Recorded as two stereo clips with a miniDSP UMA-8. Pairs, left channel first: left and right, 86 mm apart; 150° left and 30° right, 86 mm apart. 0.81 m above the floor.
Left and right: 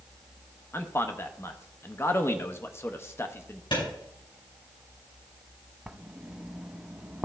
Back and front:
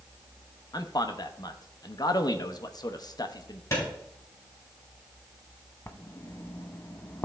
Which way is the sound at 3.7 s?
95° left.